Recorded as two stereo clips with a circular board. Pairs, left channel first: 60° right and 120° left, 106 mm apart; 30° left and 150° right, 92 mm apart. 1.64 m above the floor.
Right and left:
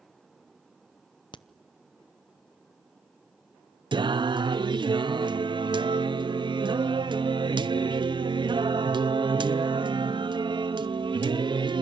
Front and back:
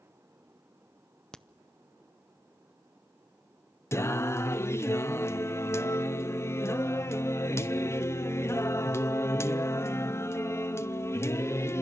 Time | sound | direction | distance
1.3 | a crack | 50° right | 0.6 m
3.9 | singing | 85° left | 0.6 m